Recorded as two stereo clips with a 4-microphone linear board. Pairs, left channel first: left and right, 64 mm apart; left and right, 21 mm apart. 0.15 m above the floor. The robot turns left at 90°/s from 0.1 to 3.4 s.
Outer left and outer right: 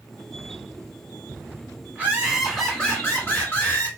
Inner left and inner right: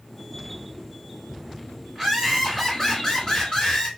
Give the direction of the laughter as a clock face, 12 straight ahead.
4 o'clock.